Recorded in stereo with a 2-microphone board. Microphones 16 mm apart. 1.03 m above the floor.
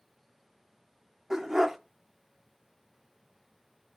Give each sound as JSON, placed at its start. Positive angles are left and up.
{"t": 1.3, "sound": "a dog barking", "side_deg": -30, "distance_m": 0.6}